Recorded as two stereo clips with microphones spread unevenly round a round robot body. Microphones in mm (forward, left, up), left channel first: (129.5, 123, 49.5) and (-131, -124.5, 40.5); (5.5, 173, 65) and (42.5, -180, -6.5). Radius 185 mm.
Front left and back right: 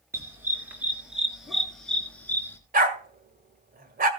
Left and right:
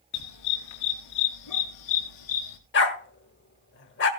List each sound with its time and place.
0.1 s a dog barking: 140° left, 4.5 m; by 2.6 s 125° left, 3.5 m
2.7 s a dog barking: 155° left, 1.7 m